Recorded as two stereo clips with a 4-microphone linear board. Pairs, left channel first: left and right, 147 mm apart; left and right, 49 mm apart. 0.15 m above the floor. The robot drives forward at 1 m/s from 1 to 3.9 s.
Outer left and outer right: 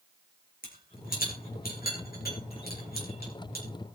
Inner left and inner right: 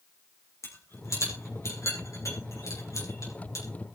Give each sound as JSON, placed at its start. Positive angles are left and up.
{"t": 0.6, "sound": "a rattle", "side_deg": 70, "distance_m": 7.0}